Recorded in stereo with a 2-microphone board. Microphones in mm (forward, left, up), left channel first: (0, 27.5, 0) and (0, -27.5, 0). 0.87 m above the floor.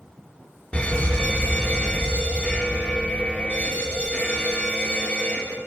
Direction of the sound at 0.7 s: 20° left (ahead or behind).